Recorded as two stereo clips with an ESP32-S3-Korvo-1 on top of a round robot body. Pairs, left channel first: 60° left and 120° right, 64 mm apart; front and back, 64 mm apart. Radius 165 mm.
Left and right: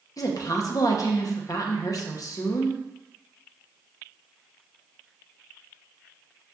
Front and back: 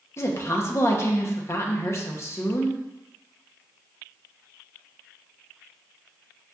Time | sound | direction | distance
0.2 | a woman speaking | 45° left | 0.8 m